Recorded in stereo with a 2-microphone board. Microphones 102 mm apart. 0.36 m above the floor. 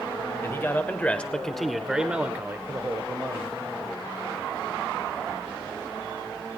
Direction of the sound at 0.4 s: 25° left (ahead or behind).